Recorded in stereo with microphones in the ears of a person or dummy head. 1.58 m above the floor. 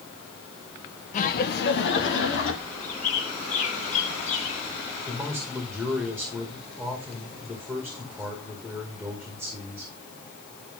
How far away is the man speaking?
About 2 m.